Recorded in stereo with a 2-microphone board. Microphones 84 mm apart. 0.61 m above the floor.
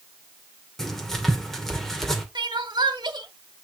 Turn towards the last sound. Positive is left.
turn(degrees=-65)  # may be behind; listen again after turning